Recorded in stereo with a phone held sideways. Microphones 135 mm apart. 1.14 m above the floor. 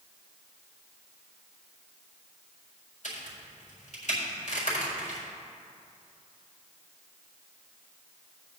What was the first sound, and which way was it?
A crack, 65° left (ahead or behind).